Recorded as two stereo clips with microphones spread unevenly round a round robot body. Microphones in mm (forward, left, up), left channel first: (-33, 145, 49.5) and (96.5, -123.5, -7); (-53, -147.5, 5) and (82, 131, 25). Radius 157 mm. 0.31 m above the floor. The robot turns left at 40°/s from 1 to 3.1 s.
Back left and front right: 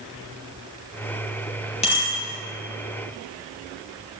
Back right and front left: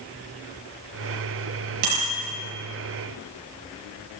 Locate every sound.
1.8 s a bicycle bell: 45° left, 6 m; by 2.1 s 35° left, 6 m